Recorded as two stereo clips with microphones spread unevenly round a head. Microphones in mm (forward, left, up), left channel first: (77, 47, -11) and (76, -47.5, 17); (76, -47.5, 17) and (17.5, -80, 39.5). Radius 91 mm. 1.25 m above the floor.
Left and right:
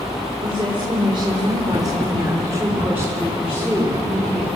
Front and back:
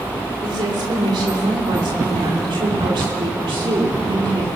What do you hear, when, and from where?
0.4 s a woman speaking: 155° right, 4 m; by 4.5 s 175° left, 3.5 m